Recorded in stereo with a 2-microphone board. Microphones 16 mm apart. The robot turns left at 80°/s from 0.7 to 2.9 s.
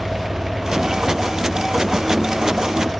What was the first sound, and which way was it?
Only background noise.